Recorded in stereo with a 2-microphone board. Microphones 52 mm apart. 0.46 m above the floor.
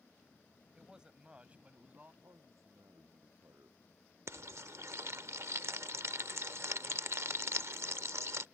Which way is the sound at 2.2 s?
75° right (ahead or behind).